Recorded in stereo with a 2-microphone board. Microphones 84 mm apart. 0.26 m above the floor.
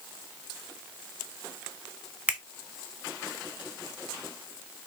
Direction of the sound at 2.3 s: 15° right (ahead or behind).